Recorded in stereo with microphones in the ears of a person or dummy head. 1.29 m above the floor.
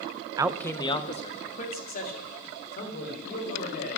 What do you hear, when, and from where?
0.4 s a man speaking: 20° right (ahead or behind), 0.6 m; by 4.0 s 50° left (ahead or behind), 5.5 m